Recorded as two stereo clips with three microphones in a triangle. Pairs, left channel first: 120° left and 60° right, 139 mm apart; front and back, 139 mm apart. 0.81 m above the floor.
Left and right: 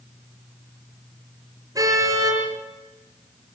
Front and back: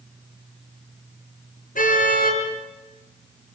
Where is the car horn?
5° left, 6.5 m.